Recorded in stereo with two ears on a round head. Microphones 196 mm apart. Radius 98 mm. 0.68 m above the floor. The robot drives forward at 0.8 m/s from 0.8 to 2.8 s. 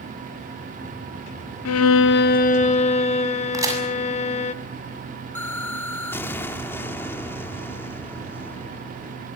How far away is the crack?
About 7 m.